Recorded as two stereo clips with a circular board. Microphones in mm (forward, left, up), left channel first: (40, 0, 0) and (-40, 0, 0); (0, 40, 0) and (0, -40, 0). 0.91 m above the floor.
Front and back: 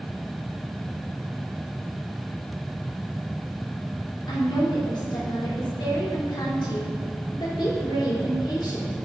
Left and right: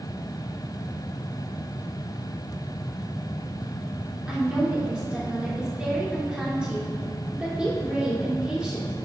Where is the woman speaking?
10° right, 3 m.